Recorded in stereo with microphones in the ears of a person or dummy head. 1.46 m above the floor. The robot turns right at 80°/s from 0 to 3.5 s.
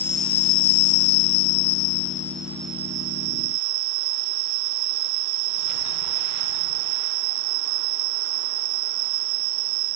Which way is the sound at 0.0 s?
5° right.